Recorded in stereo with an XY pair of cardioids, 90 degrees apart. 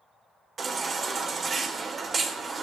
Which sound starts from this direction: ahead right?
A baby crying, at 0.6 s.